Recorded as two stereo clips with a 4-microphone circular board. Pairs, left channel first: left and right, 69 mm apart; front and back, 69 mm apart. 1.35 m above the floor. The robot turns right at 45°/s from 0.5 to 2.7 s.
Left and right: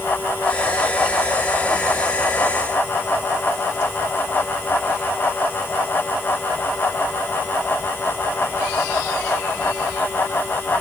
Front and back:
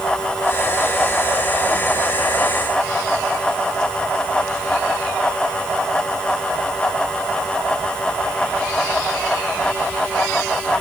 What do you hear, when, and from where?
Only background noise.